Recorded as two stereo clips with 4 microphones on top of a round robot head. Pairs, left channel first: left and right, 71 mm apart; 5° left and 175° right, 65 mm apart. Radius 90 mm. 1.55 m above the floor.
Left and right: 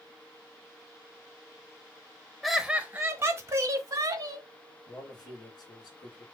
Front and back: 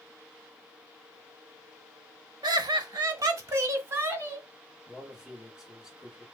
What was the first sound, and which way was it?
Laughter, straight behind.